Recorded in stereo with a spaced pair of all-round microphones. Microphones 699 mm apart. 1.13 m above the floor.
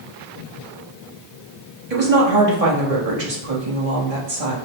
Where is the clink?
No clink in this recording.